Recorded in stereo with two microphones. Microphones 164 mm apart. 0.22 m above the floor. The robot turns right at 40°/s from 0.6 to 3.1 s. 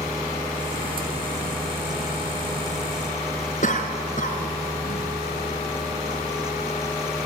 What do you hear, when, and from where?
3.6 s a cough: 55° left (ahead or behind), 3 m